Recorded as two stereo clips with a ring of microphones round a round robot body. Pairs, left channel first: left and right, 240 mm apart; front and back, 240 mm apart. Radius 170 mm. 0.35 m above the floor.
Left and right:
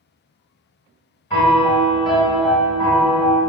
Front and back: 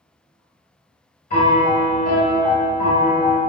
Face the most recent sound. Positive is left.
turn(degrees=25)